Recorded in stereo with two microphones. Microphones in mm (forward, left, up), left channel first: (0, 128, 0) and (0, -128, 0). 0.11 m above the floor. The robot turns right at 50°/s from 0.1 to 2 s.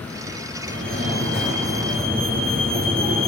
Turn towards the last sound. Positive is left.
turn(degrees=-60)